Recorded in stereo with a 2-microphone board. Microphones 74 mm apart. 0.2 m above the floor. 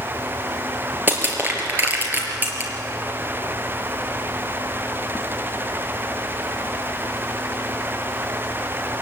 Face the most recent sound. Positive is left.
turn(degrees=-25)  # may be behind; listen again after turning